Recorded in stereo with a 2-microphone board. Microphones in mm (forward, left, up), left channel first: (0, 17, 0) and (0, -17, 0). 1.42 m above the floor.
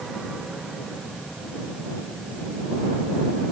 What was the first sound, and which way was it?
Only background noise.